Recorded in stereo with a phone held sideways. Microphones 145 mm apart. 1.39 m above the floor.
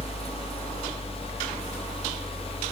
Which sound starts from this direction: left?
A fan, at 0.0 s.